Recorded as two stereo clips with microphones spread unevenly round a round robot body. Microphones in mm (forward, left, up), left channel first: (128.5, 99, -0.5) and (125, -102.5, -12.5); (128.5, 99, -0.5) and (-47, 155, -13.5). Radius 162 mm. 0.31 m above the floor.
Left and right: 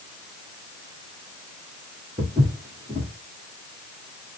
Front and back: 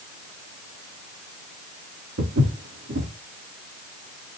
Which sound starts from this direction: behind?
Footsteps, at 2.2 s.